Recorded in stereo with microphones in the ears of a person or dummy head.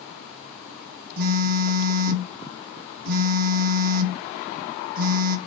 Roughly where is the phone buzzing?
Right.